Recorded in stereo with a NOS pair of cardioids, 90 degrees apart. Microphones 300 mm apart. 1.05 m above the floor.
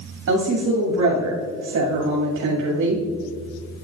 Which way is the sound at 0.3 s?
70° right.